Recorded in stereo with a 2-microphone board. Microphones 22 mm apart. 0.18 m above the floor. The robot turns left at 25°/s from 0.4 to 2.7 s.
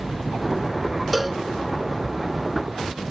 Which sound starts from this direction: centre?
A cowbell, at 1.1 s.